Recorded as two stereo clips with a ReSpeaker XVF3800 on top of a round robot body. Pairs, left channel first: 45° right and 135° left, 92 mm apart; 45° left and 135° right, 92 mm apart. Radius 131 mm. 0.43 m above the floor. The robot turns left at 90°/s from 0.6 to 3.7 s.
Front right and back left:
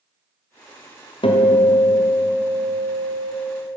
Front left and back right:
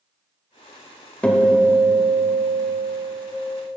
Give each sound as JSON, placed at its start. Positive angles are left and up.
{"t": 1.2, "sound": "a guitar", "azimuth_deg": -30, "distance_m": 2.0}